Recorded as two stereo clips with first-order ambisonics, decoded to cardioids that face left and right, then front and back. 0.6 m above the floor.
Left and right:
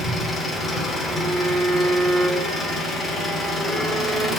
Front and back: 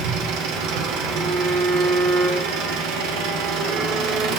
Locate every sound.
0.0 s an engine running: 165° left, 0.7 m
1.1 s a violin: 165° right, 0.9 m